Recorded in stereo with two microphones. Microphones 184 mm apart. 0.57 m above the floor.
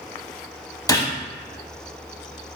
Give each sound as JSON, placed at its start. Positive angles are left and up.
{"t": 0.9, "sound": "a gunshot", "side_deg": 20, "distance_m": 0.6}